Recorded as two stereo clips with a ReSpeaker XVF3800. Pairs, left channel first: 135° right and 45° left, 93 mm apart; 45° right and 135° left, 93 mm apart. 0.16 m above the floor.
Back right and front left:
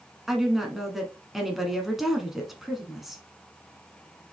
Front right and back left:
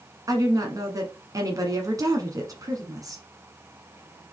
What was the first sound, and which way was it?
A woman speaking, 130° left.